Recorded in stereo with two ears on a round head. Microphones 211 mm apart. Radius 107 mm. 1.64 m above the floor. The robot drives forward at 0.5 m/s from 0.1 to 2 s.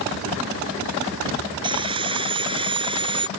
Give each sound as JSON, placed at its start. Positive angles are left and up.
{"t": 1.6, "sound": "sawing", "side_deg": -20}